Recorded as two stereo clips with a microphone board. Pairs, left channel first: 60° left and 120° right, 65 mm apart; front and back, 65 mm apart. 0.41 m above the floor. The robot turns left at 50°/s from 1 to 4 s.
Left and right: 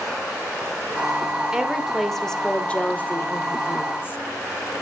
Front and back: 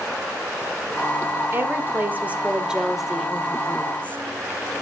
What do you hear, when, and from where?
1.5 s a woman speaking: 170° left, 1.3 m; by 4.2 s 45° left, 1.3 m